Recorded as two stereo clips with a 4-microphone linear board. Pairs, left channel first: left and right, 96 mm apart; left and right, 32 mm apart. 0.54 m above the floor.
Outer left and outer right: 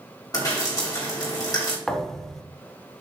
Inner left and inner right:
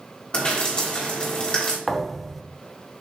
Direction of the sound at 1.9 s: 5° left (ahead or behind).